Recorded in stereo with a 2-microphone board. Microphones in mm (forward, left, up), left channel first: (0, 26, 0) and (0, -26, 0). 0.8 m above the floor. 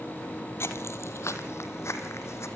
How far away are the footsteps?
About 1.4 m.